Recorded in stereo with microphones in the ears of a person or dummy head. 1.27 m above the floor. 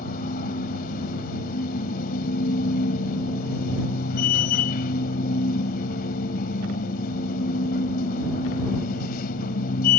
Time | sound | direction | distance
0.0 | a machine running | 60° left (ahead or behind) | ?